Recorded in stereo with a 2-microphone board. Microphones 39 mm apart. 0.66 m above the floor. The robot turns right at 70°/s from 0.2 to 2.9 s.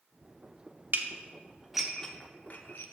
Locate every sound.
0.9 s dishes clattering: 60° right (ahead or behind), 0.6 m; by 2.8 s 65° left (ahead or behind), 0.6 m